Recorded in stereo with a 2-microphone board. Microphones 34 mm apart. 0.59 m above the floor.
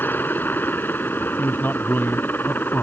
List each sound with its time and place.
0.0 s a helicopter: 75° left (ahead or behind)
1.4 s a man speaking: 75° left (ahead or behind)